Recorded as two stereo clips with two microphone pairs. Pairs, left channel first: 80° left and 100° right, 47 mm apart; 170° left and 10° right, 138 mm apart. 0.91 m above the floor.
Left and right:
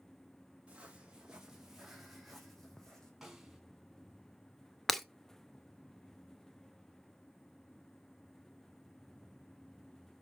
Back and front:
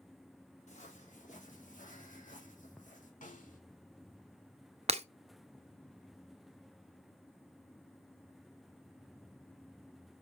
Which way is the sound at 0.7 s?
165° right.